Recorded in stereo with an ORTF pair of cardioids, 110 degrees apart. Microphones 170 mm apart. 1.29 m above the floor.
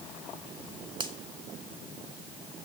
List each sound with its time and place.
1.0 s a finger snap: 25° right, 1.7 m